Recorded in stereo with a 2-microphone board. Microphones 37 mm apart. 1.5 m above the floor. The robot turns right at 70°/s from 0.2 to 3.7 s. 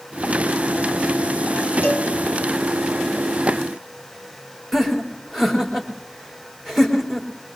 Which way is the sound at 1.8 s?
75° left (ahead or behind).